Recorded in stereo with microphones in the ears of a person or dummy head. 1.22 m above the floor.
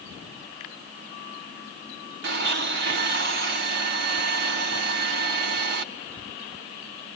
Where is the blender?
60° right (ahead or behind), 1.3 m.